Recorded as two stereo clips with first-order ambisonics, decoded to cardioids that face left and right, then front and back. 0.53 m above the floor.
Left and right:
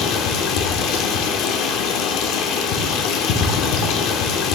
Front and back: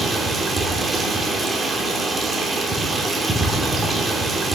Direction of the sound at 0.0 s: 100° left.